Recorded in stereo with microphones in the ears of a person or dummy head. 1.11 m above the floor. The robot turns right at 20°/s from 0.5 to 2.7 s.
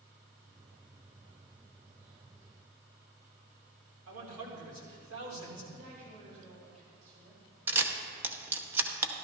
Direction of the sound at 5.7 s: 45° right (ahead or behind).